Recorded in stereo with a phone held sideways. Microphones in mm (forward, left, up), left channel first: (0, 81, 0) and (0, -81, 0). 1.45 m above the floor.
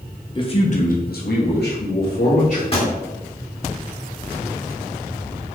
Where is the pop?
35° left (ahead or behind), 1.9 m.